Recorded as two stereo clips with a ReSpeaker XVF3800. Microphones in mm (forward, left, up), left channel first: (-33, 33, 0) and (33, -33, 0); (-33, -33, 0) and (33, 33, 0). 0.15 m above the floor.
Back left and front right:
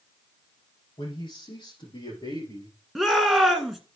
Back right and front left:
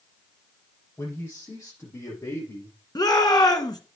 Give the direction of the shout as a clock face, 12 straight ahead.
4 o'clock.